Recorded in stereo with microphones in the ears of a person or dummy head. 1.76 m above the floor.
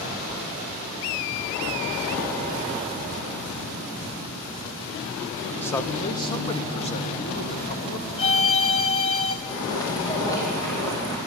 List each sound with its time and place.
5.6 s a man speaking: 10° left (ahead or behind), 1.1 m; by 8.1 s 45° left (ahead or behind), 2.5 m
8.2 s a violin: 30° left (ahead or behind), 1.4 m
9.5 s footsteps: 20° left (ahead or behind), 3.5 m; by 11.2 s 15° left (ahead or behind), 4 m